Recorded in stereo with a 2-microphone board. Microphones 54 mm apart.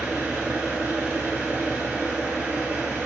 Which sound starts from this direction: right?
An engine running, at 0.0 s.